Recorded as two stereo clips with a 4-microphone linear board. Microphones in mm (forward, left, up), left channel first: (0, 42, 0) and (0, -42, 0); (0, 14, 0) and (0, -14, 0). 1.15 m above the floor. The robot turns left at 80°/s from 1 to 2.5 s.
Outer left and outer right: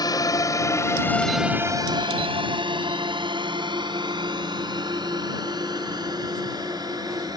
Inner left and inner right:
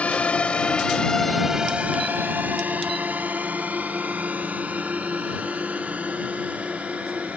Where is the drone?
50° left (ahead or behind); by 7.4 s 50° right (ahead or behind).